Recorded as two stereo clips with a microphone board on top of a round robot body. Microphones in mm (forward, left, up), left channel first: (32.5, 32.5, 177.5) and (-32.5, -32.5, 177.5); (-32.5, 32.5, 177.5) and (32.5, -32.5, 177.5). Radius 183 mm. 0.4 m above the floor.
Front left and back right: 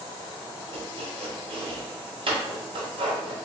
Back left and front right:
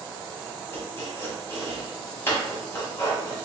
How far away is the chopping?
About 1.4 m.